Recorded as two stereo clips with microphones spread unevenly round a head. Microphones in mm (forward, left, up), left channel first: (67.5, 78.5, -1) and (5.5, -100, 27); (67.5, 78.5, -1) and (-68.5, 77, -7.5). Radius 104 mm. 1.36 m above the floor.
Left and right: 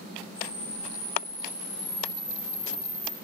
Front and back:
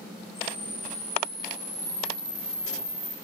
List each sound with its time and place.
0.3 s a camera shutter: 105° left, 9 m